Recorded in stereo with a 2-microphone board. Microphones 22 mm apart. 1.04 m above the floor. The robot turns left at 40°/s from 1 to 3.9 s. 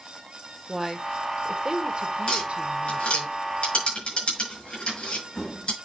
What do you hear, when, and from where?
0.7 s a woman speaking: 15° right, 1.6 m; by 3.3 s 105° right, 1.6 m
2.3 s tapping: 55° left (ahead or behind), 5.5 m; by 5.7 s 60° left (ahead or behind), 5.5 m